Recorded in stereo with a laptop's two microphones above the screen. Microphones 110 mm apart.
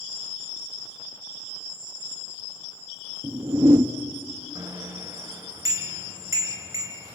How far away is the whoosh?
About 0.8 m.